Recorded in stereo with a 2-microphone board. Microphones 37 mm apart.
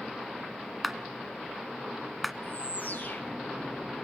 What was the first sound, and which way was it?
A clap, centre (ahead or behind).